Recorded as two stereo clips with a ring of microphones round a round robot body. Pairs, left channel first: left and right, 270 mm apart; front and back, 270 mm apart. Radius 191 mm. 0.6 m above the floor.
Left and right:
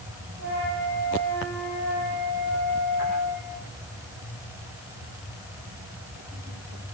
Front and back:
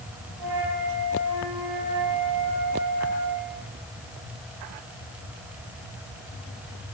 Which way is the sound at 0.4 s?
155° left.